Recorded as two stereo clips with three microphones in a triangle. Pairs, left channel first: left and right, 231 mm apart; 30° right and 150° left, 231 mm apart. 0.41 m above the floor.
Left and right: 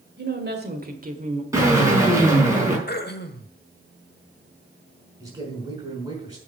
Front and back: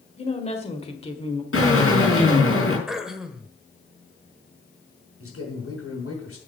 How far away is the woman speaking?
About 2.0 m.